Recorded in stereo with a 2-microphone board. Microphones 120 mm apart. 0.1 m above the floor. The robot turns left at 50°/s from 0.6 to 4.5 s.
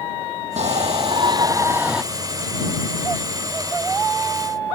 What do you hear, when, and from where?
0.6 s a shout: 105° right; by 2.0 s 175° right